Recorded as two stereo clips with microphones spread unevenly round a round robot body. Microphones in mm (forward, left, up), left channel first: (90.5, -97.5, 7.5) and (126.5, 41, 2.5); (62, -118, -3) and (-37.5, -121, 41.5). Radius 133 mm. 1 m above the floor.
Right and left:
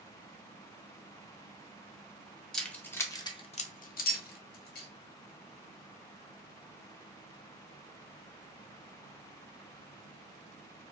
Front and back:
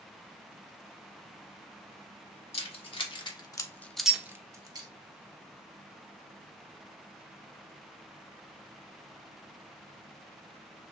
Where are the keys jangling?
20° right, 1.1 m; by 4.9 s 125° right, 0.9 m.